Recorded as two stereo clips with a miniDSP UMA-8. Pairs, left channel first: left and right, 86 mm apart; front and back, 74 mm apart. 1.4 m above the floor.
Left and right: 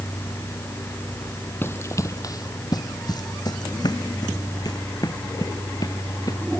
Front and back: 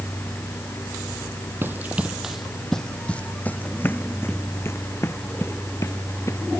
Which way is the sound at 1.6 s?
140° left.